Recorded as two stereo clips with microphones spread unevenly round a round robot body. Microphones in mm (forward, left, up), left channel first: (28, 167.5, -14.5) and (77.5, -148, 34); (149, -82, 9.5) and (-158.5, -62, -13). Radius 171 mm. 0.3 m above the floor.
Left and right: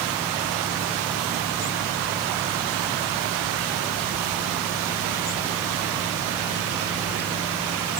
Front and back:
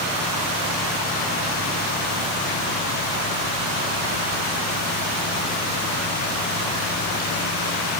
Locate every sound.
Only background noise.